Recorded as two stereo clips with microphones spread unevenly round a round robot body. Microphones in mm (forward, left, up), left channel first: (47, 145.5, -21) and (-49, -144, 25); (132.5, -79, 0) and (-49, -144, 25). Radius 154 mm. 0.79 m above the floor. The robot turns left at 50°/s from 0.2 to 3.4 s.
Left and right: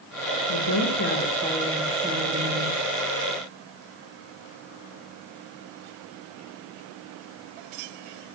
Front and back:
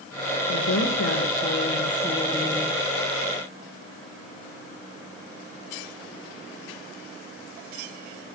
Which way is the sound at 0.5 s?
45° left.